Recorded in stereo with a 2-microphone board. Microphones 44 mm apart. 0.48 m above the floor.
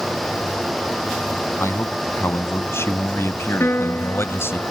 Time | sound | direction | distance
1.6 | a man speaking | 70° left (ahead or behind) | ?
3.6 | a piano | 60° left (ahead or behind) | ?